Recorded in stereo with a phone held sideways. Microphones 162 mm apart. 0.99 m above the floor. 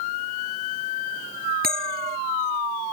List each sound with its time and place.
1.6 s a bell: 65° right (ahead or behind)